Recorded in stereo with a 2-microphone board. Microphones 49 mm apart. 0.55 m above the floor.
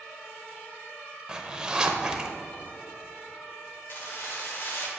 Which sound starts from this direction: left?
Keys jangling, at 3.9 s.